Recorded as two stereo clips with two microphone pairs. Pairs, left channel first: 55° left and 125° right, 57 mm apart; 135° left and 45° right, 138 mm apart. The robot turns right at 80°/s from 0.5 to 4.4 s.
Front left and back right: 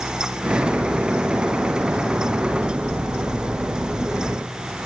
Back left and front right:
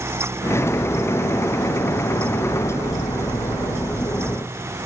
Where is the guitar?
I don't hear a guitar.